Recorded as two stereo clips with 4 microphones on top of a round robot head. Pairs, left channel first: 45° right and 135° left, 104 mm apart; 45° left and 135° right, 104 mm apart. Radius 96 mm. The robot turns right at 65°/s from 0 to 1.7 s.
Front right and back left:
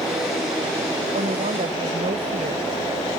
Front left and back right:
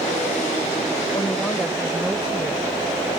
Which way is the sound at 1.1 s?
105° left.